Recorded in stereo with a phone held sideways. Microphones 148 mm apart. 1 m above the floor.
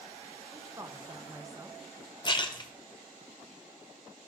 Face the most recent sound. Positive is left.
turn(degrees=30)  # may be behind; listen again after turning